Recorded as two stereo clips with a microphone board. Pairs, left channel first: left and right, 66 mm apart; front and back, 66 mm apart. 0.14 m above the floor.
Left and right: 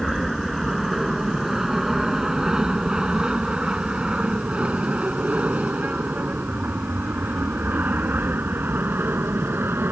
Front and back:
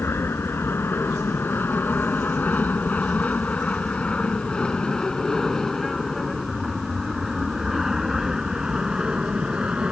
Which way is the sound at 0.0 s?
Straight ahead.